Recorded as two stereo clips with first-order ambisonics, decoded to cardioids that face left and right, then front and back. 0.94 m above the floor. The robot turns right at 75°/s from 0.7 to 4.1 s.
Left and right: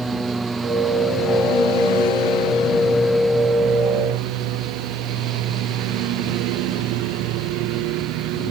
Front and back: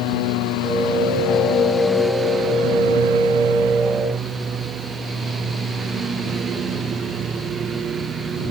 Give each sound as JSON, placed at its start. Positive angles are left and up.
{"t": 0.0, "sound": "a lawn mower", "azimuth_deg": -10}